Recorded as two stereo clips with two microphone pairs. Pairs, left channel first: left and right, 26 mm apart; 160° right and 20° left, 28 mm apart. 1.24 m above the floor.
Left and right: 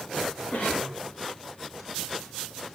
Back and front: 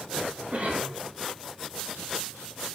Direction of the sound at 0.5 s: 60° left.